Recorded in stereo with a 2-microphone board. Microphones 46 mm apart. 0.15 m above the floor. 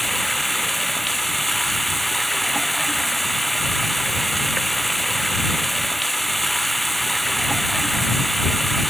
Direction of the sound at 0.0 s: Centre (ahead or behind).